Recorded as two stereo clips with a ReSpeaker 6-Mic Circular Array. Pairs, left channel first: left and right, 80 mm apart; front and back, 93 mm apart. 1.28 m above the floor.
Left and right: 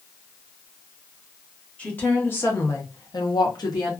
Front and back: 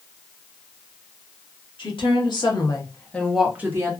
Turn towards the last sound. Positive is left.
turn(degrees=130)